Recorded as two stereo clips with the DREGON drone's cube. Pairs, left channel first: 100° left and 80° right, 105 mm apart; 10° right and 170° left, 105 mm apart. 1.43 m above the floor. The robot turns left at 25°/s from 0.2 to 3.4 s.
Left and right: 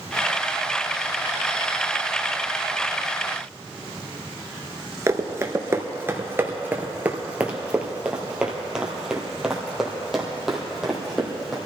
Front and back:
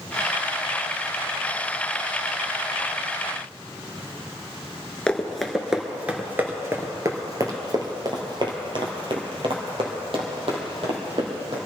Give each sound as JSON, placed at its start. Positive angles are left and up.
{"t": 5.1, "sound": "running footsteps", "azimuth_deg": -80, "distance_m": 1.5}